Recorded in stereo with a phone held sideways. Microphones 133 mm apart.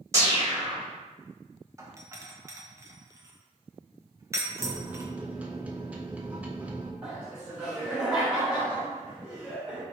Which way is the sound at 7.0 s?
5° right (ahead or behind).